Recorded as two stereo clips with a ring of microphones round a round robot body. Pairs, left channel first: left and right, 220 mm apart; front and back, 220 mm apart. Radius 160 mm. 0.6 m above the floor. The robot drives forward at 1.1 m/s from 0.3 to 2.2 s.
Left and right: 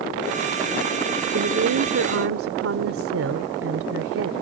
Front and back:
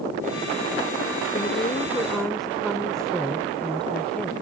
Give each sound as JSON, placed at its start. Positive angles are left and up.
{"t": 1.3, "sound": "a woman speaking", "azimuth_deg": -65}